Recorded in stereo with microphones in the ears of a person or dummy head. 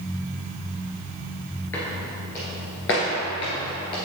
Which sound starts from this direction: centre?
Footsteps, at 1.7 s.